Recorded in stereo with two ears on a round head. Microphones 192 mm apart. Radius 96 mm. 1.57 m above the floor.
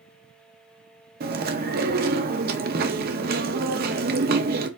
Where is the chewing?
45° right (ahead or behind), 0.6 m.